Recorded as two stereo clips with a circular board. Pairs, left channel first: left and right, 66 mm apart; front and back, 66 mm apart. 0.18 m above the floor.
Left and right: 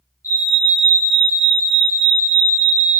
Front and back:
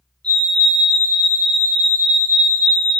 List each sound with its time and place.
0.2 s a fire alarm: 70° left, 3.5 m